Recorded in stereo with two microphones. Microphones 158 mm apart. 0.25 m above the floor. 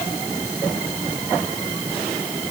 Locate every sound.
Only background noise.